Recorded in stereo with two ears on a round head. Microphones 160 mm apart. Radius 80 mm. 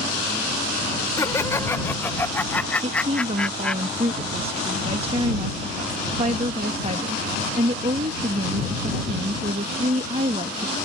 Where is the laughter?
15° left (ahead or behind); by 3.8 s 5° left (ahead or behind).